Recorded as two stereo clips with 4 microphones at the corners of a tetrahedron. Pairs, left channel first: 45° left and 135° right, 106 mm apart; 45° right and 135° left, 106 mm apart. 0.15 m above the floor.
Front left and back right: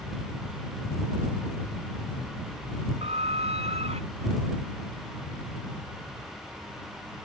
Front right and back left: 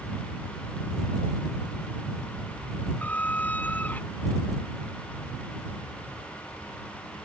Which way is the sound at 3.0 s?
120° right.